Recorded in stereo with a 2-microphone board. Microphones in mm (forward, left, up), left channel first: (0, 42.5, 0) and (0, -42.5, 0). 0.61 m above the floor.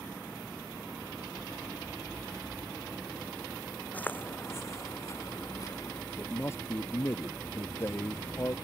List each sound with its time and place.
3.9 s footsteps: 20° left (ahead or behind); by 6.0 s 45° left (ahead or behind)
6.2 s a man speaking: 30° left (ahead or behind)